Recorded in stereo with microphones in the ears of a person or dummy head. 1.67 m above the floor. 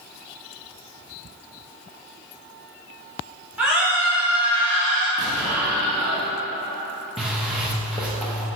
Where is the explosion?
5° right (ahead or behind), 1.5 m.